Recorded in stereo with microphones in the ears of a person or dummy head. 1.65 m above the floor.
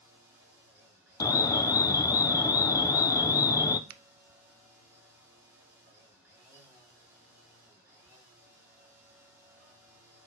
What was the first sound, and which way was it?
A machine running, 15° right (ahead or behind).